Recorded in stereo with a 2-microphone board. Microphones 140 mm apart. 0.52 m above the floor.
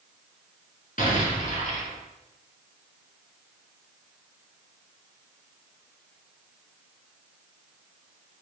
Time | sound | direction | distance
1.0 | an explosion | 75° left (ahead or behind) | 1.3 m